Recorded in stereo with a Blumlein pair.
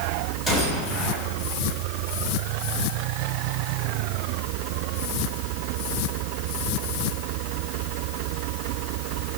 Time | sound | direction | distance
0.5 | a gunshot | 15° left | 8 m